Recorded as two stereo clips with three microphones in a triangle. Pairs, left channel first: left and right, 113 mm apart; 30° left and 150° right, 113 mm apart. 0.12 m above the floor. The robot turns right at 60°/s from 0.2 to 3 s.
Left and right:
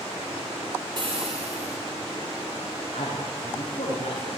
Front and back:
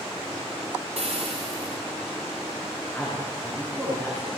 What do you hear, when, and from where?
1.0 s frying: 140° right, 7.5 m; by 1.8 s 90° right, 7.5 m
2.9 s a man speaking: 125° left, 10 m; by 4.4 s 130° left, 10 m